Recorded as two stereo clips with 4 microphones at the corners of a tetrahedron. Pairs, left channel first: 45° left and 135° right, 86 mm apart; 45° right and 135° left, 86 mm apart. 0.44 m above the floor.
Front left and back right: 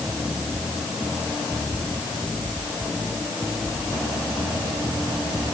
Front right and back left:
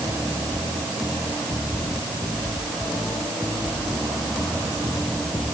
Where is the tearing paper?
I don't hear tearing paper.